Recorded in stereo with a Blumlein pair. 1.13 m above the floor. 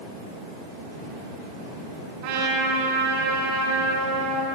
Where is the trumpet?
45° right, 5 m.